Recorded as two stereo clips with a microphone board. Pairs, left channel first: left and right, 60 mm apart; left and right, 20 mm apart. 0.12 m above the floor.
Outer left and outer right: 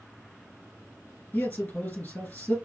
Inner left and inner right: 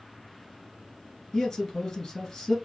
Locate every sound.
1.3 s a man speaking: 25° left (ahead or behind), 1.7 m